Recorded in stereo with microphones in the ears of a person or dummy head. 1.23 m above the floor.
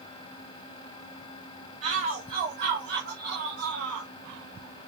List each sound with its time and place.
1.8 s a shout: 35° right (ahead or behind), 3 m; by 4.1 s 65° right (ahead or behind), 3.5 m